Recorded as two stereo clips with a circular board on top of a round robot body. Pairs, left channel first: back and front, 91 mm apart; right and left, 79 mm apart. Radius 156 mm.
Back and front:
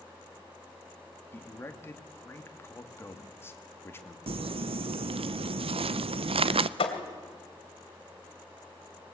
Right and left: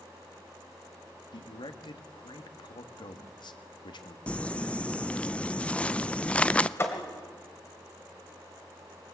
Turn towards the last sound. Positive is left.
turn(degrees=-150)